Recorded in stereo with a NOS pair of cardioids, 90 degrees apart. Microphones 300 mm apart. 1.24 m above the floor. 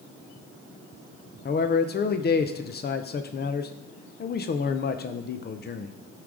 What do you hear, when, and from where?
1.4 s a man speaking: 35° left, 0.6 m